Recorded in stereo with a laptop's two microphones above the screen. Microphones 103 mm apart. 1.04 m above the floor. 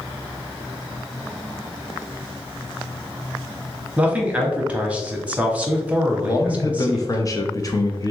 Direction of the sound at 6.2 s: 35° left (ahead or behind).